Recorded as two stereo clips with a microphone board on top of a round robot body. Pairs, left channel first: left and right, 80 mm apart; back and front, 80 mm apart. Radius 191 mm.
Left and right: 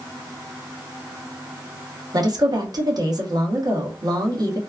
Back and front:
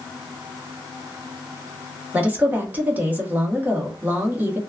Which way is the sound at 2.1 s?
65° right.